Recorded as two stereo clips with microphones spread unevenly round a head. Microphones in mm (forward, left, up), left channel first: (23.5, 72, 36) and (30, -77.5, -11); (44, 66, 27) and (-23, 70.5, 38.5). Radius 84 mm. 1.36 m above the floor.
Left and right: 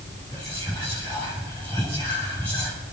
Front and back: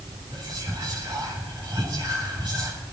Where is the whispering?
170° left, 10 m.